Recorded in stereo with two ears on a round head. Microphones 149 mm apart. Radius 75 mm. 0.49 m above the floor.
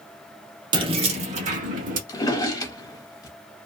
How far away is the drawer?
About 0.7 m.